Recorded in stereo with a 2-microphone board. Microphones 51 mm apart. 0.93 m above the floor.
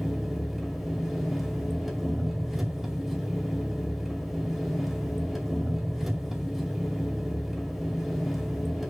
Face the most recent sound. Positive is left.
turn(degrees=-5)  # may be behind; listen again after turning